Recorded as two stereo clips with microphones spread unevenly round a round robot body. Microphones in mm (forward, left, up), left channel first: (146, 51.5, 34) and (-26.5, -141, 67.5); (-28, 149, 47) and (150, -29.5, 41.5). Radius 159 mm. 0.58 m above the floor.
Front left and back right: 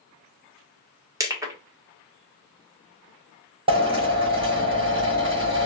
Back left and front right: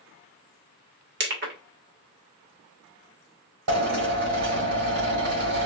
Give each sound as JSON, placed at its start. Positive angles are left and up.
{"t": 1.2, "sound": "crushing", "azimuth_deg": -50, "distance_m": 1.5}
{"t": 3.7, "sound": "a drill", "azimuth_deg": -60, "distance_m": 2.5}